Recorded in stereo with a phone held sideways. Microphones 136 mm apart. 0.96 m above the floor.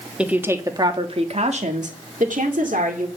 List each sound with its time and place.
0.2 s a woman speaking: 10° right (ahead or behind), 1.4 m; by 3.1 s 80° right, 2.5 m